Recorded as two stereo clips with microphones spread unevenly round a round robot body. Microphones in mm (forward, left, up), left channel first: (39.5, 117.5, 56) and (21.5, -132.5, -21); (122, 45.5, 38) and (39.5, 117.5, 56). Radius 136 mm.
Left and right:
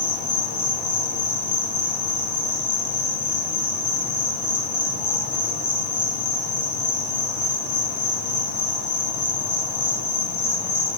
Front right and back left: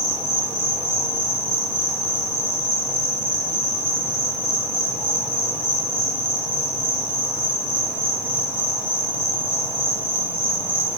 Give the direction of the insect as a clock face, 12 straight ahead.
10 o'clock.